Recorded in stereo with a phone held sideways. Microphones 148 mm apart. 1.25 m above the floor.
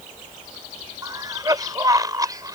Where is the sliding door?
No sliding door in this recording.